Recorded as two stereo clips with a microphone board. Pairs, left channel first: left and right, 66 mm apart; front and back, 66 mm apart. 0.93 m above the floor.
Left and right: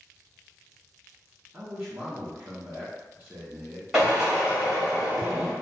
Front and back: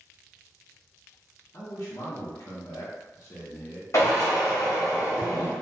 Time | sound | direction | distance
1.5 | a man speaking | 30° right | 0.8 m
3.9 | a drill | 15° right | 1.2 m